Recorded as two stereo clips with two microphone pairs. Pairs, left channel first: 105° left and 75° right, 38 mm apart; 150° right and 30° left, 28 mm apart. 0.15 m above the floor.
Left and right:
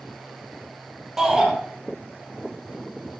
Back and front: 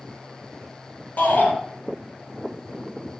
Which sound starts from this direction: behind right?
A shout, at 1.2 s.